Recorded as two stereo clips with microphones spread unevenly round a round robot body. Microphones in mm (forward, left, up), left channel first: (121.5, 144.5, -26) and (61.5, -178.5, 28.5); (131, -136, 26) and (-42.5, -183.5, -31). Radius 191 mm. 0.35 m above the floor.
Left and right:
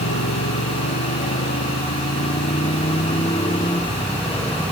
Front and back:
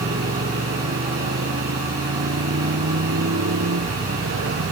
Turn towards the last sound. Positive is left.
turn(degrees=170)